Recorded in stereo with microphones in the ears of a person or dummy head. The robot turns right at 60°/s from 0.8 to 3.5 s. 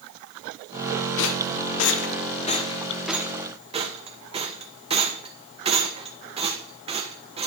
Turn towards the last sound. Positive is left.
turn(degrees=-25)  # may be behind; listen again after turning